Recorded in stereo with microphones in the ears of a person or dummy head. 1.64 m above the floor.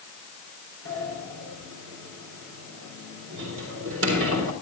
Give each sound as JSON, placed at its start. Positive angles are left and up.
{"t": 0.8, "sound": "a sliding door", "side_deg": -75, "distance_m": 3.5}